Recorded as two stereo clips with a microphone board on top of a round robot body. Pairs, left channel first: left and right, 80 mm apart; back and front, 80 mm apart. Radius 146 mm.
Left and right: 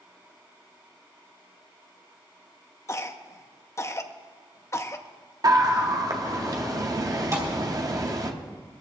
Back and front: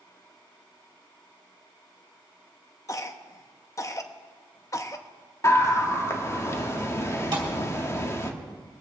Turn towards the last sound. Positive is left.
turn(degrees=-35)